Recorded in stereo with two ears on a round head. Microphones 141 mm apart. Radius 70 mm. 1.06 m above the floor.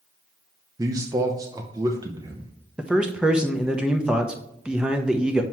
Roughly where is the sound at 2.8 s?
Centre.